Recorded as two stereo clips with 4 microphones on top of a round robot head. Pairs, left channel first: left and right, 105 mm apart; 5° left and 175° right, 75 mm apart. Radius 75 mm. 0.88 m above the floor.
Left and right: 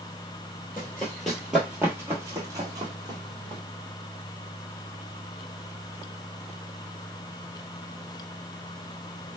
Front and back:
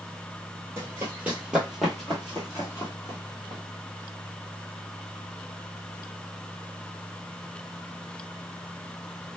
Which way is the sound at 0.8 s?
155° left.